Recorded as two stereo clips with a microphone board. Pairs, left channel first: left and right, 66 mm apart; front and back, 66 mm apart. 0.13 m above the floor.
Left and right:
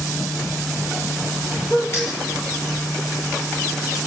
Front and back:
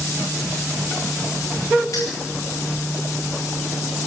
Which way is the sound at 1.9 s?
40° left.